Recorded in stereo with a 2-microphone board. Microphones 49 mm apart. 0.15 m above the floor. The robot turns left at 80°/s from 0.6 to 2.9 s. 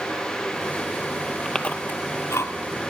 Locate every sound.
1.4 s chewing: 10° left (ahead or behind), 0.5 m; by 2.5 s 80° left, 0.5 m